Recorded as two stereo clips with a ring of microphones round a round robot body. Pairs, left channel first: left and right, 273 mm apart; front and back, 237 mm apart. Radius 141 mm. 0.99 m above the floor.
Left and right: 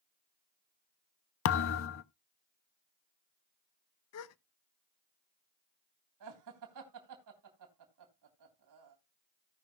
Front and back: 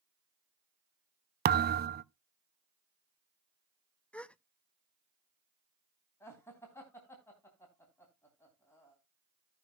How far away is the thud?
About 0.5 m.